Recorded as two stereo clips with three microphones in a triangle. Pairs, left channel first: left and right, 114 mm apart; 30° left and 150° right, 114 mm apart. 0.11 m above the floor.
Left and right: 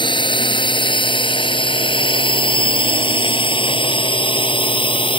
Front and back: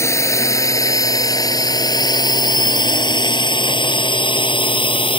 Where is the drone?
85° left; by 5.2 s 60° left.